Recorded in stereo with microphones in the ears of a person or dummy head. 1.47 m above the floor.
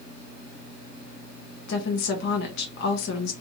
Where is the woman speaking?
55° left (ahead or behind), 0.7 m.